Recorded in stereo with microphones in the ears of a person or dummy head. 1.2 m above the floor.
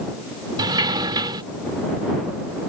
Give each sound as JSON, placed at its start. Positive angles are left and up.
{"t": 0.6, "sound": "a sliding door", "side_deg": -20}